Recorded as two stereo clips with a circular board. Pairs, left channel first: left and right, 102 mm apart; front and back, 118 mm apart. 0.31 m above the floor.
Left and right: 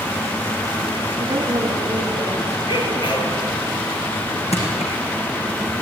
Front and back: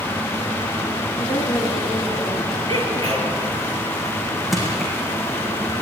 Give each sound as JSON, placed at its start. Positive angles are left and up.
{"t": 1.2, "sound": "a woman speaking", "azimuth_deg": -25, "distance_m": 5.0}
{"t": 2.7, "sound": "a sneeze", "azimuth_deg": 55, "distance_m": 5.5}
{"t": 4.5, "sound": "crushing", "azimuth_deg": 90, "distance_m": 6.0}